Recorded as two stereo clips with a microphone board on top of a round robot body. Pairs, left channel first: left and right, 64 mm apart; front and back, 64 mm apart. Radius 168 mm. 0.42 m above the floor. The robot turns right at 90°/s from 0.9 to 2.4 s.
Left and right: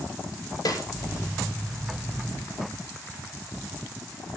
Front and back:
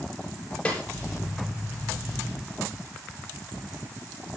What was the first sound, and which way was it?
A snare drum, 70° left.